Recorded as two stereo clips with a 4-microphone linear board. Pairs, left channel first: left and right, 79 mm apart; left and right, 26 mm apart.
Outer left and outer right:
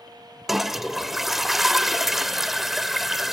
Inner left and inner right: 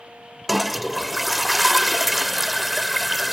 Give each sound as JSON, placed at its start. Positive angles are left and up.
{"t": 0.5, "sound": "a toilet flushing", "side_deg": -5, "distance_m": 1.0}